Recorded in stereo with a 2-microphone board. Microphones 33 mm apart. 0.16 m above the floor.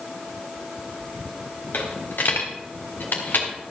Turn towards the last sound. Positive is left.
turn(degrees=85)